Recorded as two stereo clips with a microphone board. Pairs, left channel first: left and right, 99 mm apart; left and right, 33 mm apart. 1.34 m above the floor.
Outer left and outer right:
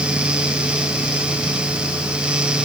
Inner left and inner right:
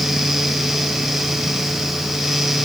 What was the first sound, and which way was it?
Only background noise.